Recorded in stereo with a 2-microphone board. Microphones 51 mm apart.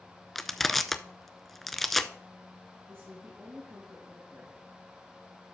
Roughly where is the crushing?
Centre.